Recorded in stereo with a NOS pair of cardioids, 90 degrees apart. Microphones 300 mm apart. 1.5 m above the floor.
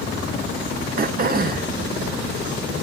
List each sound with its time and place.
1.0 s throat clearing: 30° right, 1.0 m